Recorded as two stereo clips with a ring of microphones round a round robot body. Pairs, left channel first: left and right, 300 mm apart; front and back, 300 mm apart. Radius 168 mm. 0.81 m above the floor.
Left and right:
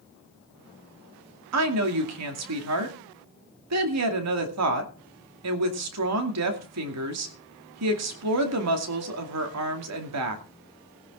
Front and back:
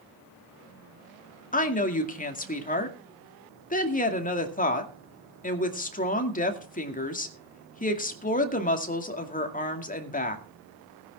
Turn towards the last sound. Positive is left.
turn(degrees=-60)